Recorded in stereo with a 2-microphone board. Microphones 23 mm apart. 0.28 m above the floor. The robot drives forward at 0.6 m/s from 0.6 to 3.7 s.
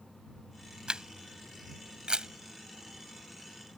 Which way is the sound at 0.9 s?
35° right (ahead or behind).